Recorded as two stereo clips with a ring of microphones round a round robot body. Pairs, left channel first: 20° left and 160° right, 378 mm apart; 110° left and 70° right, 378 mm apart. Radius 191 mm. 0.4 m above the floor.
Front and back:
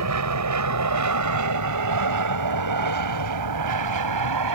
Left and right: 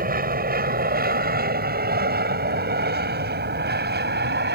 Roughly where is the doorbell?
I don't hear a doorbell.